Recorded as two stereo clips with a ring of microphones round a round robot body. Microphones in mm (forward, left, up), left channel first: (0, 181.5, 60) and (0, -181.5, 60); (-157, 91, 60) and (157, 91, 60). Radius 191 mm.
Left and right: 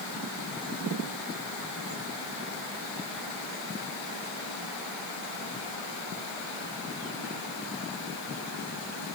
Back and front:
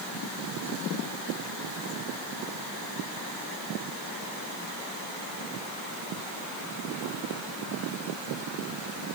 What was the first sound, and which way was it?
Only background noise.